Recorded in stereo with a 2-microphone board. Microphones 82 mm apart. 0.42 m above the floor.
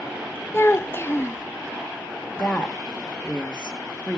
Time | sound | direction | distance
0.5 | a child speaking | 30° left (ahead or behind) | 0.5 m
2.4 | a woman speaking | 15° left (ahead or behind) | 0.9 m